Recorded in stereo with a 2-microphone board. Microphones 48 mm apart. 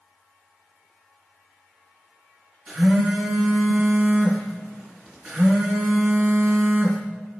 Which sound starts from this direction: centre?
A phone buzzing, at 2.7 s.